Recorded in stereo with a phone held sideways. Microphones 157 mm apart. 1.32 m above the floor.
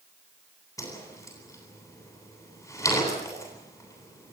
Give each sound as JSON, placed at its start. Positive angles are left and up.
{"t": 0.8, "sound": "a whoosh", "side_deg": 20, "distance_m": 9.5}